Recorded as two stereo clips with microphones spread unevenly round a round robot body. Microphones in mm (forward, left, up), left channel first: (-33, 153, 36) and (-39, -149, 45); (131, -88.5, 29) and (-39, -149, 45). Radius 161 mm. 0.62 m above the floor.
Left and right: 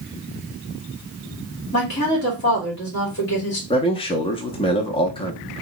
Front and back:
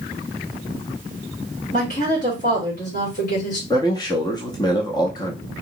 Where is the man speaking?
40° left, 0.6 m.